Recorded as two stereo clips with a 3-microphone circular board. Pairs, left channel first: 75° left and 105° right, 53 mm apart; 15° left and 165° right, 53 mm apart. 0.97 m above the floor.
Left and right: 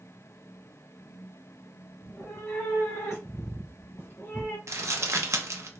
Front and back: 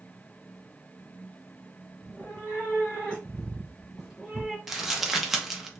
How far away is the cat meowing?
About 1.5 m.